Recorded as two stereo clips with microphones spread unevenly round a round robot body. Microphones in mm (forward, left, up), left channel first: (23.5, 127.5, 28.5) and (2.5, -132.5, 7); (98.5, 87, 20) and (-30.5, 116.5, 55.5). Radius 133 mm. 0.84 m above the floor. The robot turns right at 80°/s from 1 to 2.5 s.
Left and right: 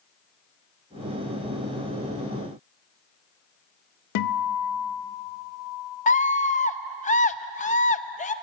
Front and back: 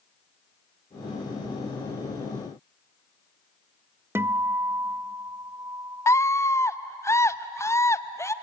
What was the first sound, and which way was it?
A guitar, 85° left.